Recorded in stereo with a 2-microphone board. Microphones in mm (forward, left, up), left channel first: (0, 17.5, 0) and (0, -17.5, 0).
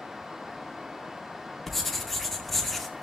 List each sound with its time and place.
1.7 s writing: centre (ahead or behind), 2 m